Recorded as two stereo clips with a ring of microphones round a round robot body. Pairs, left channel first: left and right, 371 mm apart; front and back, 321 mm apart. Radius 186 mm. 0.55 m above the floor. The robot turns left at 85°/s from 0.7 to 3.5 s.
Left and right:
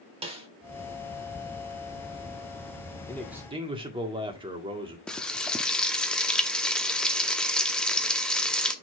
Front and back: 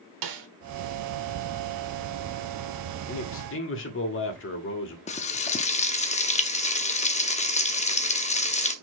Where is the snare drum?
165° right, 1.3 m.